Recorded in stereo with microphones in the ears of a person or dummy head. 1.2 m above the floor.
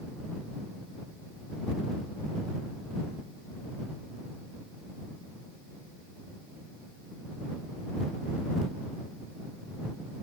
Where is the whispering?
I don't hear whispering.